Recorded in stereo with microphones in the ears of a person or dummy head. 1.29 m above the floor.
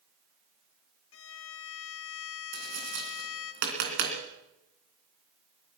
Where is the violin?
75° left (ahead or behind), 1.2 m.